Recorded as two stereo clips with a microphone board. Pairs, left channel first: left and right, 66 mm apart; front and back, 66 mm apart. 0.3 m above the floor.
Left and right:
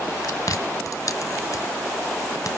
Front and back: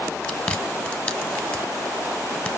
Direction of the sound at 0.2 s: 65° left.